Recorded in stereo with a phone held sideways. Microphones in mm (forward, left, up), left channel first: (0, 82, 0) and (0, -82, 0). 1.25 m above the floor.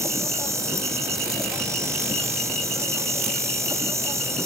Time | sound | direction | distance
0.0 | an insect | 15° right (ahead or behind) | ?